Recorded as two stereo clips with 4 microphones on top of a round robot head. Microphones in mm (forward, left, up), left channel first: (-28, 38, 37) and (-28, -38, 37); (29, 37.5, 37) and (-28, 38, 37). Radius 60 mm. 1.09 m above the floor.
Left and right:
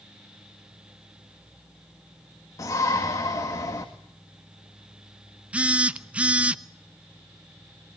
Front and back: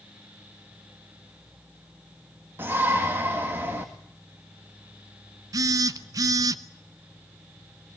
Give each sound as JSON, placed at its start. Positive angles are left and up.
{"t": 2.6, "sound": "a shout", "azimuth_deg": 130, "distance_m": 1.9}
{"t": 5.5, "sound": "a phone buzzing", "azimuth_deg": -165, "distance_m": 0.8}